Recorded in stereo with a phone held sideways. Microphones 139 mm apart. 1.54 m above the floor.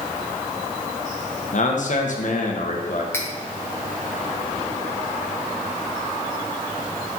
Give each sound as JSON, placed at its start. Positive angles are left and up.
{"t": 1.5, "sound": "a man speaking", "side_deg": 60, "distance_m": 1.0}
{"t": 3.1, "sound": "cutlery clinking", "side_deg": 20, "distance_m": 0.9}